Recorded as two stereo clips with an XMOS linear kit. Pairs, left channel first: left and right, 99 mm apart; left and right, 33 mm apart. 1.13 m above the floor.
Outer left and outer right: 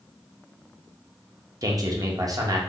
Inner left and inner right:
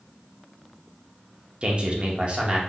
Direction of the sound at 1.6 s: 35° right (ahead or behind).